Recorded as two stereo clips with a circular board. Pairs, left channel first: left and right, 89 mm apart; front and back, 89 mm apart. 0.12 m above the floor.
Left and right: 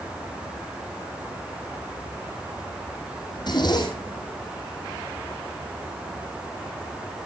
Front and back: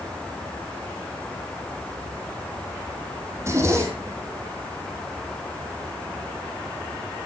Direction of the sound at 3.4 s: 125° left.